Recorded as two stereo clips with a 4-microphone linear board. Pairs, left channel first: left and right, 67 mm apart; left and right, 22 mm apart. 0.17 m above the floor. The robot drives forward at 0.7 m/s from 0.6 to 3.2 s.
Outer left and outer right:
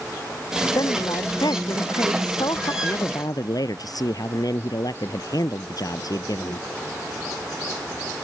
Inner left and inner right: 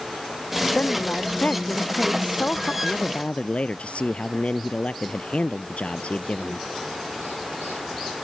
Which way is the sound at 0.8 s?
70° left (ahead or behind).